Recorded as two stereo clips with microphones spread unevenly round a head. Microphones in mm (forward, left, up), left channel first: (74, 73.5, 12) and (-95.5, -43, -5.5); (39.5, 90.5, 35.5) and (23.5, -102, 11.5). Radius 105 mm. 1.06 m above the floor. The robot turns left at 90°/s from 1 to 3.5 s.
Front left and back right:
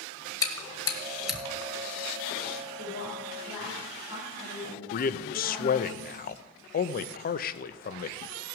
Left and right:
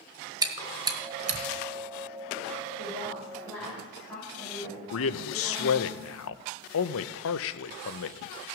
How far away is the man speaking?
About 0.6 m.